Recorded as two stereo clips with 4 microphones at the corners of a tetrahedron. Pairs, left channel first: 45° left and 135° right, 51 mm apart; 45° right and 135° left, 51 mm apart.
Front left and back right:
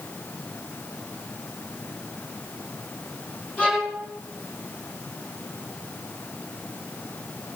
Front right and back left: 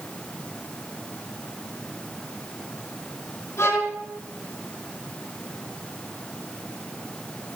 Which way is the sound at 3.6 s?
15° right.